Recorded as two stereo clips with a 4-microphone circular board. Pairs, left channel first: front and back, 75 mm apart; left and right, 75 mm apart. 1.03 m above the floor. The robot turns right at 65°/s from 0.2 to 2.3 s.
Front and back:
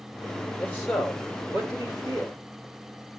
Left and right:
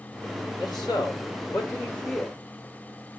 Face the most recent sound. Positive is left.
turn(degrees=180)